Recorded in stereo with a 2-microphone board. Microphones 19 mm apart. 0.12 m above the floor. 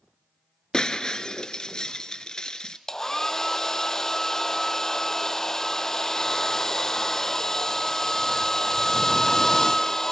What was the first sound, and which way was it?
Breaking glass, 40° left (ahead or behind).